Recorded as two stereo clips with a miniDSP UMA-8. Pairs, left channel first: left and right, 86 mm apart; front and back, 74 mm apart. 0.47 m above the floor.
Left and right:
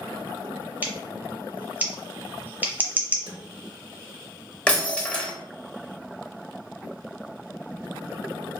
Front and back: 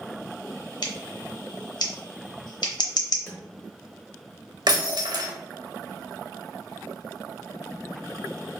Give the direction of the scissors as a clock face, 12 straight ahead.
1 o'clock.